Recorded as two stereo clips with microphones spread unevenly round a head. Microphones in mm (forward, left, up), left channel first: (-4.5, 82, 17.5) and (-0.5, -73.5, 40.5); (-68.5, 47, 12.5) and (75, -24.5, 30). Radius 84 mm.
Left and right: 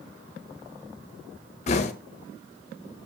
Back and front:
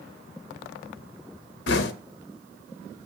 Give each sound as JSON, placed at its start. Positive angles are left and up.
{"t": 1.7, "sound": "knocking", "azimuth_deg": 140, "distance_m": 0.8}